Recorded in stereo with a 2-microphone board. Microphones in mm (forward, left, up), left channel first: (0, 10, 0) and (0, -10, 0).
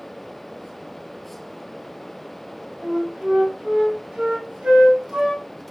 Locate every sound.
2.8 s a flute: 75° right (ahead or behind), 1.2 m